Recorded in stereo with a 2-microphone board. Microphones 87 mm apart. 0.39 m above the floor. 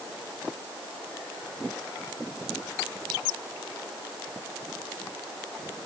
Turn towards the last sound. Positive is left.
No sound to turn to.